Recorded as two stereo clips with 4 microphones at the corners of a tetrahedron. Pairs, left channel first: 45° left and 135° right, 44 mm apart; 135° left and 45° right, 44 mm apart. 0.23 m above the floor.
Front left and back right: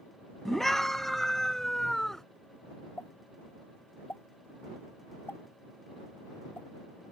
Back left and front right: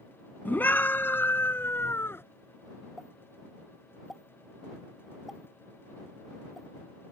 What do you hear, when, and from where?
0.5 s a scream: 125° left
3.0 s a pop: 40° left